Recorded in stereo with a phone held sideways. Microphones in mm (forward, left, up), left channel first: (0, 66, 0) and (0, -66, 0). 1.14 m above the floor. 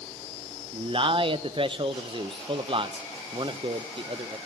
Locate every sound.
0.7 s a man speaking: 40° right (ahead or behind), 0.5 m